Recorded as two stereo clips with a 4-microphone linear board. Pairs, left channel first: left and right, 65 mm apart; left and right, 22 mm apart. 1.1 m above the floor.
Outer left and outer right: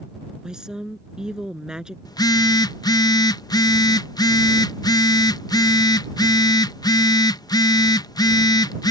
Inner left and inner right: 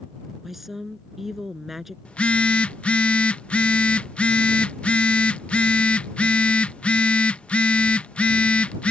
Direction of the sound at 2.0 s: 85° left.